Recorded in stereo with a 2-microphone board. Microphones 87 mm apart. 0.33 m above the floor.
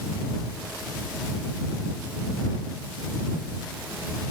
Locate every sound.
Only background noise.